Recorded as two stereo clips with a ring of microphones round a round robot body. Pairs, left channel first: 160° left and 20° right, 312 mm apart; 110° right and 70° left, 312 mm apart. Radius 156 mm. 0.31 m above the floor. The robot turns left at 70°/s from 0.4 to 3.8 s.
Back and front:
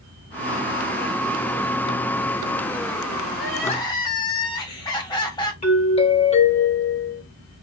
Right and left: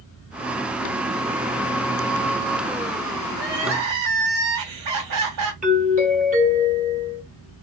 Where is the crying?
115° left, 1.9 m; by 5.5 s 85° left, 1.9 m.